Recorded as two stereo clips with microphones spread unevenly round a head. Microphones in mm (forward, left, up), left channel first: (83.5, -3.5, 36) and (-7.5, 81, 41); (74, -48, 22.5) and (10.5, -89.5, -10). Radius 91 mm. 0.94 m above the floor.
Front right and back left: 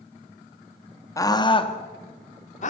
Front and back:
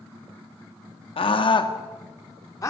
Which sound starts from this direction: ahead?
A scream, at 1.2 s.